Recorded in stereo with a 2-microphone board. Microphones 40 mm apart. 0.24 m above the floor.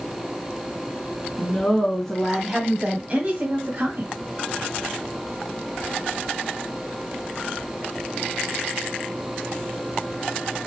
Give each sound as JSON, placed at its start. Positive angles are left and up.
{"t": 1.4, "sound": "a woman speaking", "side_deg": 25, "distance_m": 2.5}